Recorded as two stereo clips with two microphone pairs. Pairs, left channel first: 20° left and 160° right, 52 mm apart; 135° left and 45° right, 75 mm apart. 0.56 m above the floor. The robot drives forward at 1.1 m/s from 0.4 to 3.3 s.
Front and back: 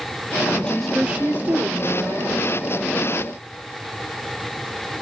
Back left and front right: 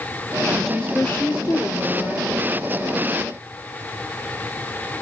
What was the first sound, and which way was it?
A woman speaking, 40° left.